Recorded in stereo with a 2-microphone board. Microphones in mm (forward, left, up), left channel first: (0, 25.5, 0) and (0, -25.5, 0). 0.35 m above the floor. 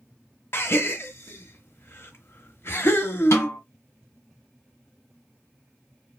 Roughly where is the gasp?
Left.